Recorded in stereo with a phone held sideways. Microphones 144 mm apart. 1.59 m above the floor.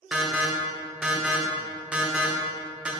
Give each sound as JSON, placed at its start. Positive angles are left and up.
{"t": 0.1, "sound": "an alarm", "side_deg": -5, "distance_m": 0.5}